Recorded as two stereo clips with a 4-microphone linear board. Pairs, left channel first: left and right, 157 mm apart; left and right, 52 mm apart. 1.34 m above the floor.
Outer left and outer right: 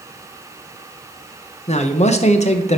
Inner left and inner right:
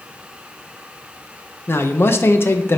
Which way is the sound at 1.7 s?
45° left (ahead or behind).